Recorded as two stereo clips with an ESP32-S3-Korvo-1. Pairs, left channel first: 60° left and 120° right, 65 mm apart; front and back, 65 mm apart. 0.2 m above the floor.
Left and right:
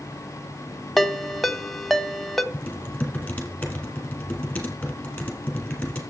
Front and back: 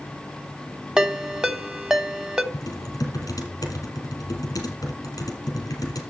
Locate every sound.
1.0 s a ringtone: 140° left, 0.7 m
2.5 s typing on a keyboard: 10° right, 2.5 m